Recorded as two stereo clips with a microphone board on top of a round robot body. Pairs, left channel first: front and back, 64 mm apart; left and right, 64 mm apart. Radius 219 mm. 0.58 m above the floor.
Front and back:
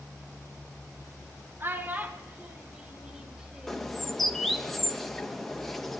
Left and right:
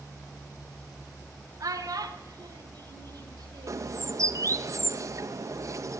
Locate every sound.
1.6 s a child speaking: 120° right, 1.8 m; by 4.0 s 95° right, 3 m
3.7 s a bird: 85° right, 1.3 m